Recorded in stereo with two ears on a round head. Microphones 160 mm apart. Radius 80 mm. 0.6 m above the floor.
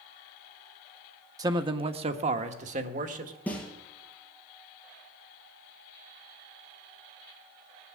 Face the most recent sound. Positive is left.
turn(degrees=10)  # may be behind; listen again after turning